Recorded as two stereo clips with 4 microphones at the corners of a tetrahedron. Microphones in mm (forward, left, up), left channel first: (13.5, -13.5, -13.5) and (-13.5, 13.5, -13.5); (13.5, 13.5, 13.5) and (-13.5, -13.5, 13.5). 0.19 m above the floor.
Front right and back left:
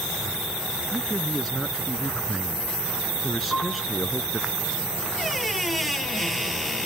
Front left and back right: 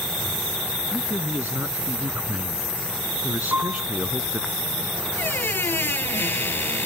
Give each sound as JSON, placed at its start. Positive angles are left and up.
{"t": 0.9, "sound": "a man speaking", "azimuth_deg": -135}
{"t": 3.5, "sound": "a piano", "azimuth_deg": -125}
{"t": 5.2, "sound": "a squeak", "azimuth_deg": 45}